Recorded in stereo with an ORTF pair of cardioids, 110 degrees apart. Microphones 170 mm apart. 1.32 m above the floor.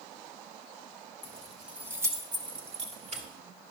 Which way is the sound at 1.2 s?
10° left.